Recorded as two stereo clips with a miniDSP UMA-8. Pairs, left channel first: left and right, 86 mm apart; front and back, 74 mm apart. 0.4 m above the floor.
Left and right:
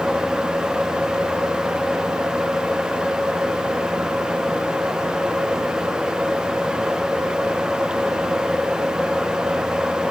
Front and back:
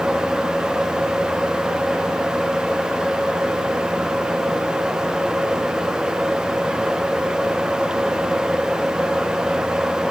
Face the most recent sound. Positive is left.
No sound to turn to.